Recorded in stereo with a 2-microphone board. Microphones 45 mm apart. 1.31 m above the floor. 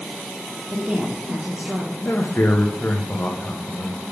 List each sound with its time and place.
0.7 s a woman speaking: 20° right (ahead or behind), 1.2 m
2.0 s a man speaking: 45° left (ahead or behind), 0.8 m